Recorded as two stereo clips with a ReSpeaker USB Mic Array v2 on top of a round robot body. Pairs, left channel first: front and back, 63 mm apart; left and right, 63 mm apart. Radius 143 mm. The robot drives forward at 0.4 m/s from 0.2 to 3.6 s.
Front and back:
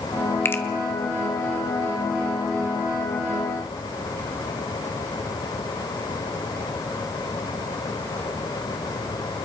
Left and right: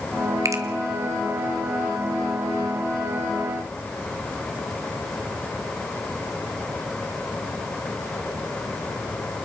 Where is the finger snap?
55° right, 1.7 m.